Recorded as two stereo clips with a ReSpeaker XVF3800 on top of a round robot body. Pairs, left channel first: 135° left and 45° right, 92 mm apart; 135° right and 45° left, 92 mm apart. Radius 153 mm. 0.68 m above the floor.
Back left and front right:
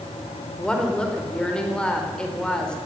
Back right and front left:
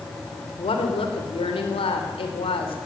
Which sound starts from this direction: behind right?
A woman speaking, at 0.6 s.